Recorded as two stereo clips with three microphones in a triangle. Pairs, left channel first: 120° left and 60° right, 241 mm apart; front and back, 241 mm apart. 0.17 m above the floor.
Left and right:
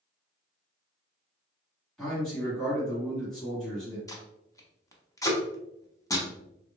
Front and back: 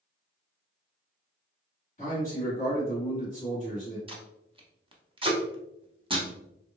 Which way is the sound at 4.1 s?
170° left.